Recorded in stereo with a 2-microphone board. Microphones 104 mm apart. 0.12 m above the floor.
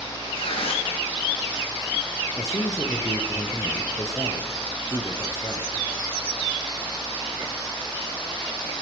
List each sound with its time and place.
0.3 s tearing paper: 65° left (ahead or behind), 4 m
2.4 s a man speaking: 30° left (ahead or behind), 2.5 m